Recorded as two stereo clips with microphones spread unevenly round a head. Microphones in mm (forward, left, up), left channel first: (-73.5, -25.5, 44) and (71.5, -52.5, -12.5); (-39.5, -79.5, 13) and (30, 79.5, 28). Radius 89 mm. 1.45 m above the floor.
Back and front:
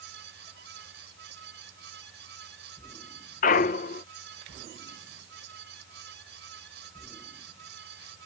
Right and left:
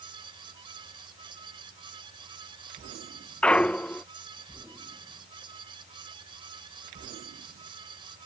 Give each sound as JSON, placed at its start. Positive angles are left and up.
{"t": 0.0, "sound": "a fan", "azimuth_deg": 5}
{"t": 3.4, "sound": "a clunk", "azimuth_deg": 160}